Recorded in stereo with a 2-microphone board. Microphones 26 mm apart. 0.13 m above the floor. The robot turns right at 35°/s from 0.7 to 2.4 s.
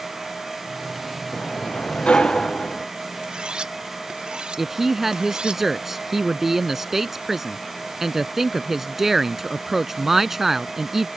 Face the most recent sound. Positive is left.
turn(degrees=-15)  # may be behind; listen again after turning